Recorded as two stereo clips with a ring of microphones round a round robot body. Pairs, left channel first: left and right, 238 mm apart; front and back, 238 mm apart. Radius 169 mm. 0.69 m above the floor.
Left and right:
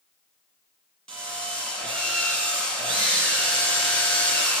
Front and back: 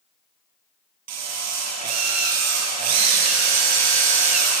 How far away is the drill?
About 7 m.